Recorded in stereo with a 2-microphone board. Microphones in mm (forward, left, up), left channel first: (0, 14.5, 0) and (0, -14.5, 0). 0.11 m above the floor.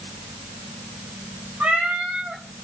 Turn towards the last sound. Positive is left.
turn(degrees=-80)